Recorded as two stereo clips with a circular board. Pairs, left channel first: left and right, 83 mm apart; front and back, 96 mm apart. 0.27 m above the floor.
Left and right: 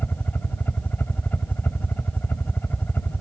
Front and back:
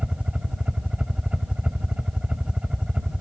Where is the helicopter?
115° left.